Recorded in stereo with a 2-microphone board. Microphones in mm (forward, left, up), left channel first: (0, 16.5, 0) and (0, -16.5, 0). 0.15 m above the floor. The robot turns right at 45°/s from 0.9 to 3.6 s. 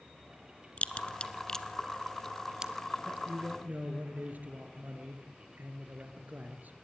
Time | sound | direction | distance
0.8 | a crack | 35° left (ahead or behind) | 0.8 m
3.0 | a man speaking | 60° right (ahead or behind) | 2.5 m